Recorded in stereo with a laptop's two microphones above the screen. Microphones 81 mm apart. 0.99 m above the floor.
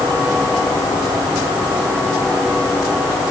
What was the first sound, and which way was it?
Only background noise.